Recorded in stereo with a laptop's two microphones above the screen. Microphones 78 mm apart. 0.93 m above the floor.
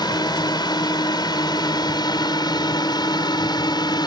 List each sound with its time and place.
0.0 s a drone: 65° left (ahead or behind)